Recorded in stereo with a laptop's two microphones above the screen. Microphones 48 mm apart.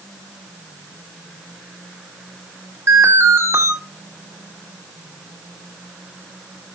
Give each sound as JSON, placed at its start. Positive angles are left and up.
{"t": 2.9, "sound": "an alarm", "side_deg": -70, "distance_m": 2.5}